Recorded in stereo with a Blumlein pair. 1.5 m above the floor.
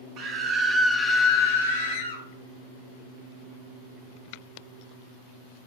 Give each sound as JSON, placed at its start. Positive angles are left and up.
{"t": 0.2, "sound": "a scream", "azimuth_deg": -40, "distance_m": 0.8}